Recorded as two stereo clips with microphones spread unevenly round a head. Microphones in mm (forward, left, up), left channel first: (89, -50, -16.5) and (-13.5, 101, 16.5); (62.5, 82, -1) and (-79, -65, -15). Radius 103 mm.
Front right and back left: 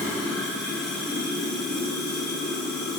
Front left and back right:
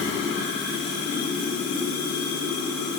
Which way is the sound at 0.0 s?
40° left.